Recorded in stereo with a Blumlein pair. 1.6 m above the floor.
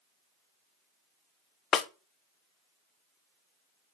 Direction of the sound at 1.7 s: 30° left.